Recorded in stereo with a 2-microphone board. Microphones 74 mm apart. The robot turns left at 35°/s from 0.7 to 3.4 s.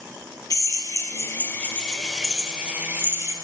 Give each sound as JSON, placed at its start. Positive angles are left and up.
{"t": 0.5, "sound": "a drill", "azimuth_deg": 55, "distance_m": 1.4}